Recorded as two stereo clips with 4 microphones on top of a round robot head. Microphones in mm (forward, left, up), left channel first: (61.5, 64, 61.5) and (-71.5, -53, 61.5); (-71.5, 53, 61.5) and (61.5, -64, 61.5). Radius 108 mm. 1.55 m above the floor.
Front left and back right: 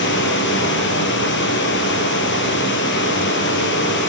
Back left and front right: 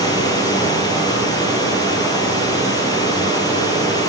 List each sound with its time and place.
0.0 s running water: 70° left, 4.5 m